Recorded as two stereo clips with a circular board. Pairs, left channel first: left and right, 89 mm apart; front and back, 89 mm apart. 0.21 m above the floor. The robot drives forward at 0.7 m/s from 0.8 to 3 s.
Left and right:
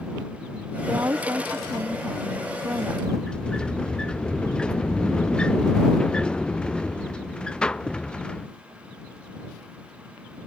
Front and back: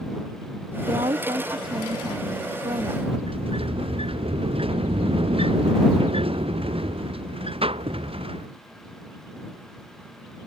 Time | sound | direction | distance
0.9 | a woman speaking | 150° right | ?
3.1 | a sliding door | 170° left | ?